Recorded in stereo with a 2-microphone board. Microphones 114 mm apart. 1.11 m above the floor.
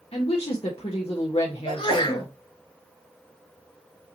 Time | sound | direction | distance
0.1 | a woman speaking | 65° left (ahead or behind) | 1.1 m
1.6 | a sneeze | 50° left (ahead or behind) | 3 m